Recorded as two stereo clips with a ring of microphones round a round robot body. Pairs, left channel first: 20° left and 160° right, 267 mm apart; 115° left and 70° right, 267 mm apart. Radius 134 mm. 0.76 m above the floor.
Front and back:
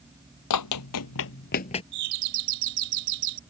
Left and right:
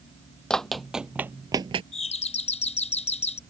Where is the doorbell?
Straight behind.